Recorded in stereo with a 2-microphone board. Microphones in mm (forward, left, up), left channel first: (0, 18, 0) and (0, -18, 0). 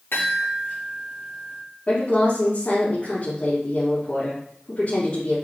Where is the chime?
80° left, 4 m.